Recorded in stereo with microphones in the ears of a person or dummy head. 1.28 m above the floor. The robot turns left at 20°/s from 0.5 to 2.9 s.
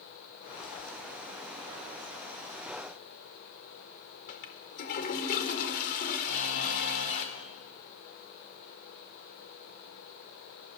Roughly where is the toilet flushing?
Left.